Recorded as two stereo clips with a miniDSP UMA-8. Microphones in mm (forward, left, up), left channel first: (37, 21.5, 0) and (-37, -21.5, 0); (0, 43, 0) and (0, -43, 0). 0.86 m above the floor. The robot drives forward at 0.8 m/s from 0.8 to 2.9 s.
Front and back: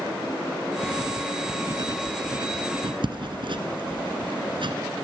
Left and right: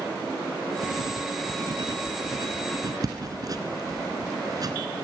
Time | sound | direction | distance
0.8 | writing | 90° right | 2.0 m